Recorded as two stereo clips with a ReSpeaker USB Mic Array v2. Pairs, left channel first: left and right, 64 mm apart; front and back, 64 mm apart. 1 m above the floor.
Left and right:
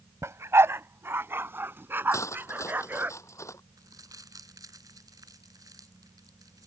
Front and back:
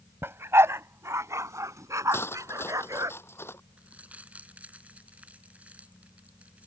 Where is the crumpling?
115° right.